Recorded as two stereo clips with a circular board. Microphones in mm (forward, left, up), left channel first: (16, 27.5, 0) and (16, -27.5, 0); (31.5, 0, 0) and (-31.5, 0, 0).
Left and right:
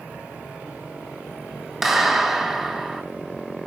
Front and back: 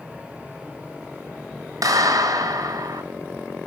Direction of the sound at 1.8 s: 175° right.